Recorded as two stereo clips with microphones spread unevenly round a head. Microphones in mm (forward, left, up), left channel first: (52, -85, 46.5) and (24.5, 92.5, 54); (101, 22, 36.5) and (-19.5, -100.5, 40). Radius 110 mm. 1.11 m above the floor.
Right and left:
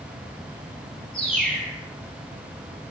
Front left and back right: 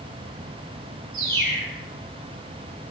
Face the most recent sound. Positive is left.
turn(degrees=-170)